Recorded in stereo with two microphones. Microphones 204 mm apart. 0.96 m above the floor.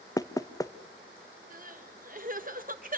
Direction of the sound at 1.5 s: 45° right (ahead or behind).